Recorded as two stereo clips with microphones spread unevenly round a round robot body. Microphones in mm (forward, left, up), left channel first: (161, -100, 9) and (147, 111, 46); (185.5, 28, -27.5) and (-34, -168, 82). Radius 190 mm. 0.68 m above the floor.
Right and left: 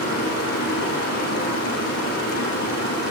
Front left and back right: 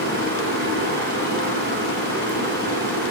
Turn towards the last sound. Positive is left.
turn(degrees=-85)